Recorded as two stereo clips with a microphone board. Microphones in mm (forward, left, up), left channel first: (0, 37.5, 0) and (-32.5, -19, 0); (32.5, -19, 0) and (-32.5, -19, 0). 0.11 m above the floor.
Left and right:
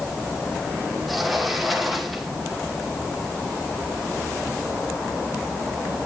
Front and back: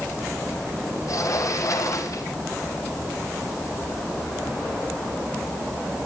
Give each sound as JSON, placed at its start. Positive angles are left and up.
{"t": 1.1, "sound": "a sliding door", "azimuth_deg": -30, "distance_m": 1.6}